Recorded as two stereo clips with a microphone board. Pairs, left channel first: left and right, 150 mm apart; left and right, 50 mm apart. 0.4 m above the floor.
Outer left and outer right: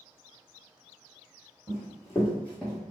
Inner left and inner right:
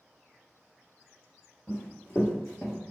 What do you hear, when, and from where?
1.7 s running footsteps: 25° left (ahead or behind), 1.8 m; by 2.8 s centre (ahead or behind), 1.1 m